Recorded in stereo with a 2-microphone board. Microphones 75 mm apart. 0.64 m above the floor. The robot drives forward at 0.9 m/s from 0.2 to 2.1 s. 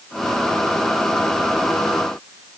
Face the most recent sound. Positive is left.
No sound to turn to.